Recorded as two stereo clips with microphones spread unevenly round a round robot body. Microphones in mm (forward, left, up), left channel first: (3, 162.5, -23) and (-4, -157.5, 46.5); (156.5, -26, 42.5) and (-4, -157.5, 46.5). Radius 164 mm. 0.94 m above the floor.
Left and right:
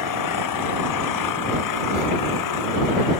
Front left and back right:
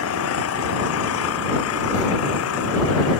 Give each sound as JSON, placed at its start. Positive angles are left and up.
{"t": 0.0, "sound": "an engine running", "azimuth_deg": 55}